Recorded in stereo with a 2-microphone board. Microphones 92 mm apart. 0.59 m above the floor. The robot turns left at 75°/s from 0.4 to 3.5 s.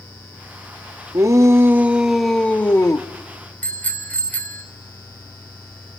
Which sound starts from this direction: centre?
A bicycle bell, at 3.6 s.